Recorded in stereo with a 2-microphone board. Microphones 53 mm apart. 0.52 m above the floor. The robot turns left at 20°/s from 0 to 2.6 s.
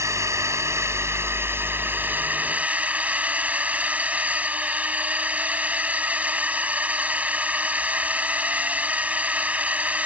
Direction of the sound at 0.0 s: 100° right.